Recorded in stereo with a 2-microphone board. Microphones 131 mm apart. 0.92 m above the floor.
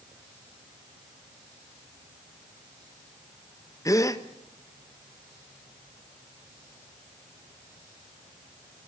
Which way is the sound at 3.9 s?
25° left (ahead or behind).